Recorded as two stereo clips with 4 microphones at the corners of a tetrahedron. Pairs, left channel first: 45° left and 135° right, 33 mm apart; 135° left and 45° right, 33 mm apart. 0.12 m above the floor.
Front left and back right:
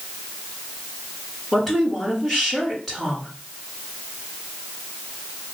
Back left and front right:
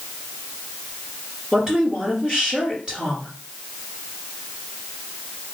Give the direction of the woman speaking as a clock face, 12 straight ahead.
1 o'clock.